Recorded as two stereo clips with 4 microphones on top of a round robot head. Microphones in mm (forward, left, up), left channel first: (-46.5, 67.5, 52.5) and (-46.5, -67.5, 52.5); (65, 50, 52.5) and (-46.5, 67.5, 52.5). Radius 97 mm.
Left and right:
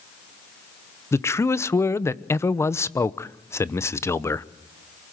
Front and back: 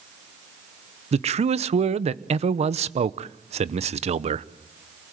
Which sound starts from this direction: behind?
A man speaking, at 1.1 s.